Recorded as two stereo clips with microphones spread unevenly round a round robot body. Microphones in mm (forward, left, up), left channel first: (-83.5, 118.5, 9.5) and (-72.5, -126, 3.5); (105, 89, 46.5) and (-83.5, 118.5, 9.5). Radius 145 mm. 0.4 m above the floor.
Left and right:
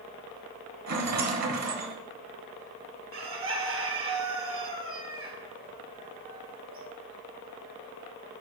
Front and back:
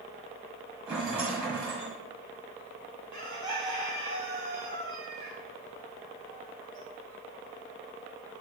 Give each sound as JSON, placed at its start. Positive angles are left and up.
{"t": 0.9, "sound": "a rattle", "azimuth_deg": -105, "distance_m": 1.6}
{"t": 3.1, "sound": "a bird", "azimuth_deg": -85, "distance_m": 1.6}